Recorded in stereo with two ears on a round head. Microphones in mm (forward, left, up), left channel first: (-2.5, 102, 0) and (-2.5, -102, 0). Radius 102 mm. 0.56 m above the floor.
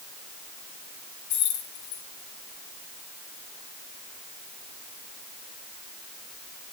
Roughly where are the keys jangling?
Left.